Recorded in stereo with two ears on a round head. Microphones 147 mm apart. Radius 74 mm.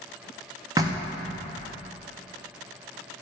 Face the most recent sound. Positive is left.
turn(degrees=-20)  # may be behind; listen again after turning